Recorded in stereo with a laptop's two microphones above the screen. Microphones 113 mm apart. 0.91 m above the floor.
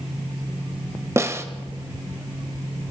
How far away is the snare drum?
About 1.1 m.